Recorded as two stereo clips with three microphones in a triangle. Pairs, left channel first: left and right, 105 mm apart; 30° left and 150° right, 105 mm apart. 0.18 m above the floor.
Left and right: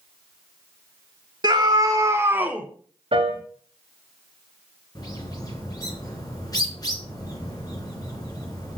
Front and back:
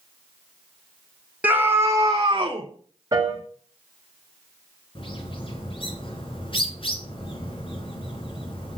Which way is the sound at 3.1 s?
95° right.